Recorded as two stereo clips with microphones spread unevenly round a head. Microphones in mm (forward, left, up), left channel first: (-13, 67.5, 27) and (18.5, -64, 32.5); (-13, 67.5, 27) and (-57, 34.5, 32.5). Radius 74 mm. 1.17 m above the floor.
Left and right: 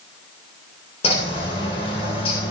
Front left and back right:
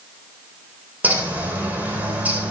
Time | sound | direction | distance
1.0 | a bird | 155° left | 9.5 m